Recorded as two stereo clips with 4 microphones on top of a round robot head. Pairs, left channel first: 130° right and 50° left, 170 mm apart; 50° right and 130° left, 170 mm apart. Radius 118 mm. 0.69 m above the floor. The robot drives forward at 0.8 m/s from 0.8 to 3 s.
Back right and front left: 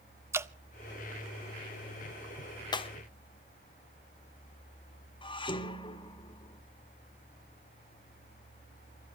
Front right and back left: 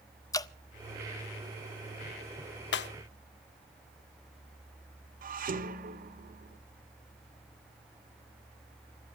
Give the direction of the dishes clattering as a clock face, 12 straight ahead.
6 o'clock.